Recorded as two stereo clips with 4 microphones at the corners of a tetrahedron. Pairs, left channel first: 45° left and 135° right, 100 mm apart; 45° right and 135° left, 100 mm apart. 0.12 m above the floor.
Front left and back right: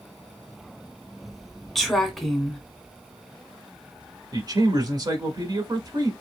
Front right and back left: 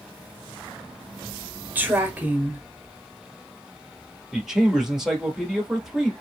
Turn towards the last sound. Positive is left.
turn(degrees=-140)